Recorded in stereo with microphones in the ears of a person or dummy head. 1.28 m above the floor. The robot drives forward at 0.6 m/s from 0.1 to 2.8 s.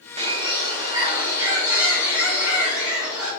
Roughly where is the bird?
Right.